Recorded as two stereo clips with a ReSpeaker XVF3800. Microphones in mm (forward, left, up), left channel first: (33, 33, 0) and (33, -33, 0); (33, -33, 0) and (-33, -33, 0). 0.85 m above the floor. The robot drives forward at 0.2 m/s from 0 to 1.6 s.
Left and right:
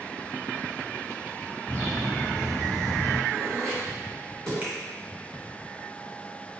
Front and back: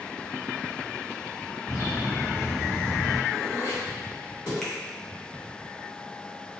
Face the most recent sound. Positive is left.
turn(degrees=-75)